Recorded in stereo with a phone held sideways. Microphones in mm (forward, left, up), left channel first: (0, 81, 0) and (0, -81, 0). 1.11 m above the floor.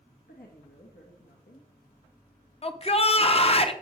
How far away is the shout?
About 0.8 m.